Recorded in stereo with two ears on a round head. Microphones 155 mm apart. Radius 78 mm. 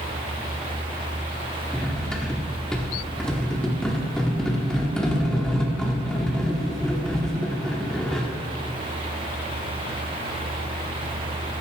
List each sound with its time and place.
1.7 s cutlery clinking: 5° left (ahead or behind), 1.0 m